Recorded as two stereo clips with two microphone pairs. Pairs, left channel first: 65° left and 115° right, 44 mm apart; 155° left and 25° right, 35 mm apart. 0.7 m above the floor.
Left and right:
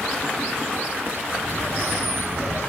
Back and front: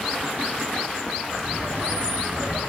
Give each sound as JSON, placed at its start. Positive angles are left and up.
{"t": 1.3, "sound": "laughter", "azimuth_deg": -75, "distance_m": 5.5}